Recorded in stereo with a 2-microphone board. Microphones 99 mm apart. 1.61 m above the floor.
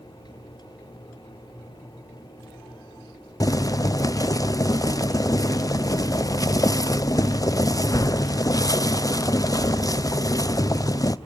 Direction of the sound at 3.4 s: 35° left (ahead or behind).